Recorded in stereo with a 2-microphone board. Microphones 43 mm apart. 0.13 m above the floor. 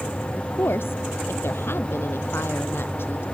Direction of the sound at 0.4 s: 65° left (ahead or behind).